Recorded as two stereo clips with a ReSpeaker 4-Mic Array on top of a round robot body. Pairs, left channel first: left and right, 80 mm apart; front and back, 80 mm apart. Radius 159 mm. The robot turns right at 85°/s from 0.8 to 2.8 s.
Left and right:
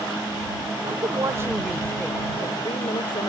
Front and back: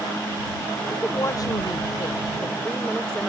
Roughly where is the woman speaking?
Right.